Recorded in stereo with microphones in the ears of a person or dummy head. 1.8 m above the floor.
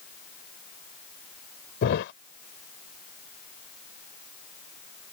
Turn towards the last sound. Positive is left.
turn(degrees=65)  # may be behind; listen again after turning